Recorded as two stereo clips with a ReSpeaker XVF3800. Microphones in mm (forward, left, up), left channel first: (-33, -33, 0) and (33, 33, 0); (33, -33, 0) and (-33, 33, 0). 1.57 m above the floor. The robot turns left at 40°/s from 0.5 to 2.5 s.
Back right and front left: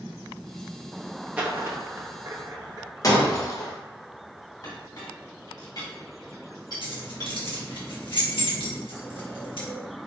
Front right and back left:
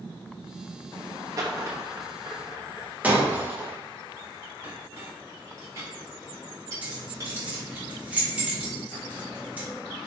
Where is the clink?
175° right, 2 m.